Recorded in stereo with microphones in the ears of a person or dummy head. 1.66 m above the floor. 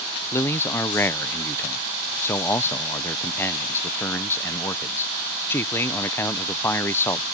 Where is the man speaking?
15° left (ahead or behind).